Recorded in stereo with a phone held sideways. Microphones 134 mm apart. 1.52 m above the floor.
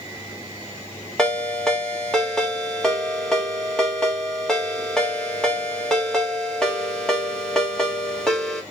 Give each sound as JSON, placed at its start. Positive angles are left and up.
{"t": 1.2, "sound": "a ringtone", "side_deg": 5, "distance_m": 1.6}